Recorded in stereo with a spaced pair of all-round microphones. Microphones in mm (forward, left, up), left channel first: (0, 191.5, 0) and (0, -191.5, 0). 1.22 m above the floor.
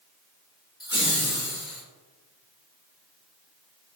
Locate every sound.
0.8 s laughter: 25° left (ahead or behind), 0.9 m; by 1.8 s 45° left (ahead or behind), 1.3 m